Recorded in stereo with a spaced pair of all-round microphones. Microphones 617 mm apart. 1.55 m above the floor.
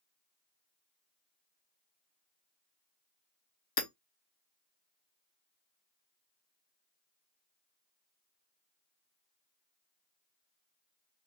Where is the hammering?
40° left (ahead or behind), 0.6 m.